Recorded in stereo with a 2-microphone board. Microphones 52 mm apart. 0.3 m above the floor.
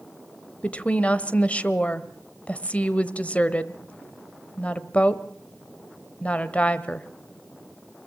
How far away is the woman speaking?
About 1.0 m.